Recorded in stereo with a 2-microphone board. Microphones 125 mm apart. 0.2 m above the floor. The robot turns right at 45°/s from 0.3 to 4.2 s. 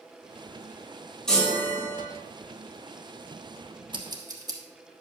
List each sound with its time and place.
1.3 s a chime: 5° left, 2.5 m; by 2.0 s 40° left, 2.5 m
3.9 s scissors: 45° right (ahead or behind), 1.3 m; by 4.6 s 35° right (ahead or behind), 1.3 m